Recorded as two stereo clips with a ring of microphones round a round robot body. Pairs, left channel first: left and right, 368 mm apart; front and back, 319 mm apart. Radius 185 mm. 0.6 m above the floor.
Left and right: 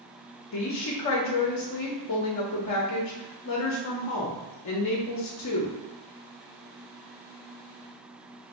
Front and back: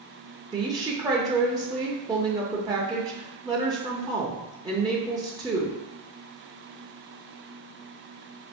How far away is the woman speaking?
About 0.8 m.